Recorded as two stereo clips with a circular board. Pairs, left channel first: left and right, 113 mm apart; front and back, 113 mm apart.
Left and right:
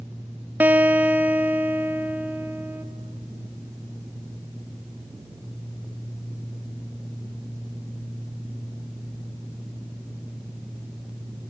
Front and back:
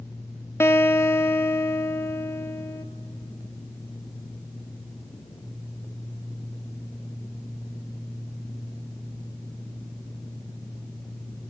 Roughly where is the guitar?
Ahead right.